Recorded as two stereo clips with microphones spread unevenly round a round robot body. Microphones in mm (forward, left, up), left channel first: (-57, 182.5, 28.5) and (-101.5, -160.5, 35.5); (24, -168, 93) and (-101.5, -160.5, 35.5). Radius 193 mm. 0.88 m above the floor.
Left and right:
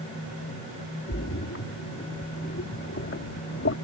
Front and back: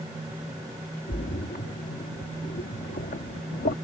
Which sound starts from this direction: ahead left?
A splash, at 1.1 s.